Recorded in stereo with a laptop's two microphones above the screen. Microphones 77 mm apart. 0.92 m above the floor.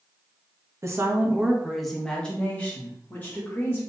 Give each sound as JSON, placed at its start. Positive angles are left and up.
{"t": 0.8, "sound": "a woman speaking", "side_deg": -40, "distance_m": 0.7}